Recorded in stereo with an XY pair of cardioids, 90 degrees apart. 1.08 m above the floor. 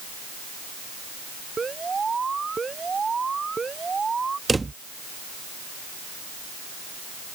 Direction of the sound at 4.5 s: 25° right.